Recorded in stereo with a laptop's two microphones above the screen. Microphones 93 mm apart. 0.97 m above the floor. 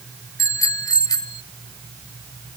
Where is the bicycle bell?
40° left (ahead or behind); by 1.4 s 50° left (ahead or behind).